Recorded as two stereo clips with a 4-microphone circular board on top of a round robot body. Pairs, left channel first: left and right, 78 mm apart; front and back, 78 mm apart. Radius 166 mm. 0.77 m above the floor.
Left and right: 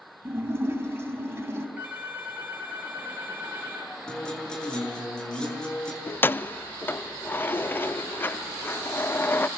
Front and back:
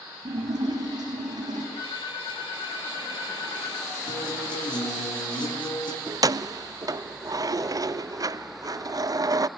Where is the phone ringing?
20° right, 6 m.